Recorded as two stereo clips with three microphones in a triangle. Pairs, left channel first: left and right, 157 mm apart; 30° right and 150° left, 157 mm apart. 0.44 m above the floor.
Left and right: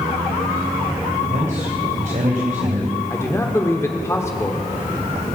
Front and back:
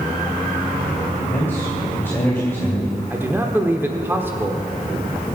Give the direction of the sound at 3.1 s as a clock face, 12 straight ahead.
8 o'clock.